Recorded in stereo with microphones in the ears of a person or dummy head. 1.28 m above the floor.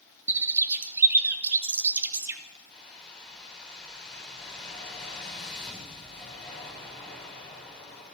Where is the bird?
15° right (ahead or behind), 0.5 m.